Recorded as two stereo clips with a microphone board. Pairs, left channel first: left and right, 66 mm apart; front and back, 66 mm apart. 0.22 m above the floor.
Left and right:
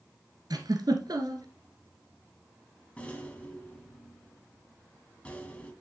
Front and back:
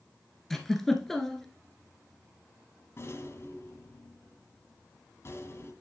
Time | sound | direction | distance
0.5 | a giggle | 85° right | 1.3 m
3.0 | a rattle | 25° left | 1.5 m